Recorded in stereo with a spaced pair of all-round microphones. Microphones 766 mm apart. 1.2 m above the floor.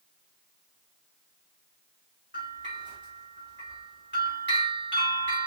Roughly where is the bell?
Centre.